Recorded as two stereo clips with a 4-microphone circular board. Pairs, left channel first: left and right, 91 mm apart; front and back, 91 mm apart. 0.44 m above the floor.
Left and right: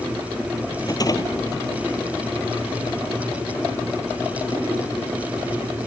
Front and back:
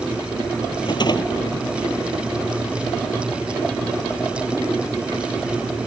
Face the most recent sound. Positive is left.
turn(degrees=40)